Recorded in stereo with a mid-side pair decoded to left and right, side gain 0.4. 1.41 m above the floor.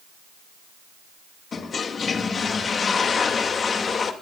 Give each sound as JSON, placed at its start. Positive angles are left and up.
{"t": 1.5, "sound": "a toilet flushing", "azimuth_deg": 50, "distance_m": 2.0}